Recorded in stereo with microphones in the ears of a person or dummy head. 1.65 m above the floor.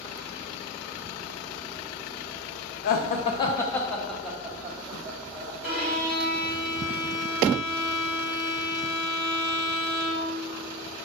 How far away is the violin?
About 1.5 m.